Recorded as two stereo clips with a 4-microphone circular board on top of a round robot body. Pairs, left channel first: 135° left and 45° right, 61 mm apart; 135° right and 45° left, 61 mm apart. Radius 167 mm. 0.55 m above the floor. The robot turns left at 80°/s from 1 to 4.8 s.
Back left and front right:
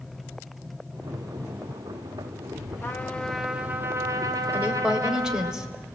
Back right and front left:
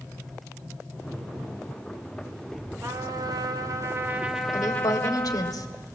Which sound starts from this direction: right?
A woman speaking, at 4.5 s.